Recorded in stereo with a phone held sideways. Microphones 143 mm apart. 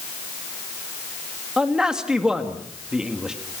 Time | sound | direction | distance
1.6 | a man speaking | 5° right (ahead or behind) | 2.5 m